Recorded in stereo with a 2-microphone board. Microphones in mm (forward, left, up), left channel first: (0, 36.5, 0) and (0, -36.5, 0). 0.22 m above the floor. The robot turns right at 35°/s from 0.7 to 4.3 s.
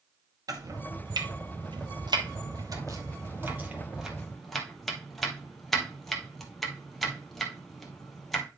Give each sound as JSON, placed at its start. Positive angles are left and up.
{"t": 0.5, "sound": "chopping", "side_deg": -55, "distance_m": 1.8}